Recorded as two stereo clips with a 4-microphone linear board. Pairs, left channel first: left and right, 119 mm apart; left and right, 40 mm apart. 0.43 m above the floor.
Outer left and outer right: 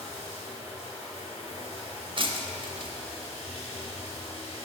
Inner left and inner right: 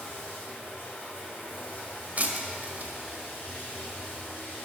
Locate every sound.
0.0 s running water: 60° left (ahead or behind), 2.5 m
2.2 s breaking glass: 45° right (ahead or behind), 0.6 m